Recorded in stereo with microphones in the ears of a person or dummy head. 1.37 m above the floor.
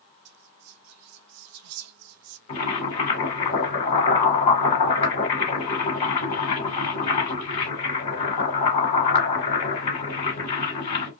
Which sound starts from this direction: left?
Boiling, at 2.5 s.